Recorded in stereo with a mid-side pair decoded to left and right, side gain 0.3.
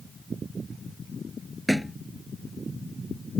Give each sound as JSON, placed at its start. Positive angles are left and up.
{"t": 1.7, "sound": "a thud", "azimuth_deg": -5}